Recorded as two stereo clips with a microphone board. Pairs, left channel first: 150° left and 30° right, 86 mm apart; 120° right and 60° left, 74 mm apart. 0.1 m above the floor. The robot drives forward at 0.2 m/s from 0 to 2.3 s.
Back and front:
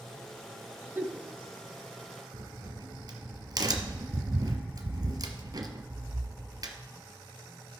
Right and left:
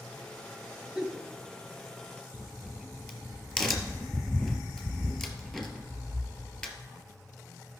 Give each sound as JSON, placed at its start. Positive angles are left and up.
{"t": 0.9, "sound": "a giggle", "azimuth_deg": -15, "distance_m": 1.6}
{"t": 2.3, "sound": "a crack", "azimuth_deg": -35, "distance_m": 1.4}